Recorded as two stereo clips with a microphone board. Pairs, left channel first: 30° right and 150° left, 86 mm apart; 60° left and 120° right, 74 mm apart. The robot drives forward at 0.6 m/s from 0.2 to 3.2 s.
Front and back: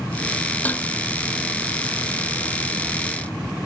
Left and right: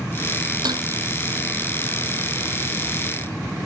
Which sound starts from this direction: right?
Dishes clattering, at 0.7 s.